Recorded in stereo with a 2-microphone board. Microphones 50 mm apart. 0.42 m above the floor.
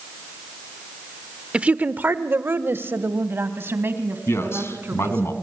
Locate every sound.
1.5 s a woman speaking: 20° right (ahead or behind), 0.9 m; by 5.3 s 50° right (ahead or behind), 4 m
4.3 s a man speaking: 55° left (ahead or behind), 3.5 m